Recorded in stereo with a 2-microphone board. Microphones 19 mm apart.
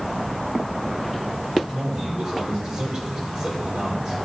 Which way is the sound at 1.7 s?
25° right (ahead or behind).